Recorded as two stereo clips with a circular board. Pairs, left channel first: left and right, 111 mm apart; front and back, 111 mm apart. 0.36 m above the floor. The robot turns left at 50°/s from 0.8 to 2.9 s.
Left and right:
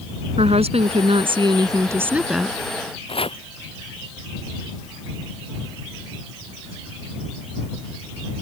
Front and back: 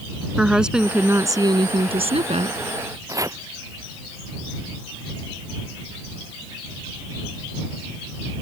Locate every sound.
0.4 s a woman speaking: 95° right; by 2.6 s 175° left
3.1 s chopping: 120° left